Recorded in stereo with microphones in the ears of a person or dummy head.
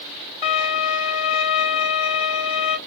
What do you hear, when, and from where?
0.4 s a violin: 35° left (ahead or behind), 2.5 m